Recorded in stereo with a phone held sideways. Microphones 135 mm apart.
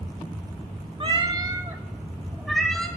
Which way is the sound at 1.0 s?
40° right (ahead or behind).